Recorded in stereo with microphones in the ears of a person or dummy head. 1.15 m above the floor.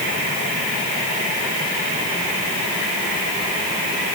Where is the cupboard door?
I don't hear a cupboard door.